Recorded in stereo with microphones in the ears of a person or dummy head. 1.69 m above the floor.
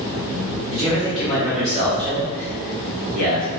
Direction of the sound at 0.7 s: Centre (ahead or behind).